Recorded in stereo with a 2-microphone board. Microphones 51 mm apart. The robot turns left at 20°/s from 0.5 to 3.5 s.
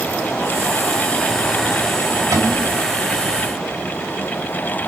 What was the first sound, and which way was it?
A cupboard door, 80° right.